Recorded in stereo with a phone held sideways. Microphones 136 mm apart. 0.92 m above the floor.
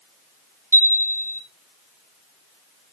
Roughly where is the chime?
Centre.